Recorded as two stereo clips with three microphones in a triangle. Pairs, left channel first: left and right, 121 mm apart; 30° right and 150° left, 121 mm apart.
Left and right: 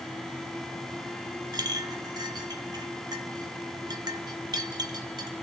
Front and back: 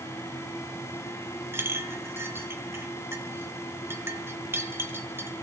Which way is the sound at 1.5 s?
140° right.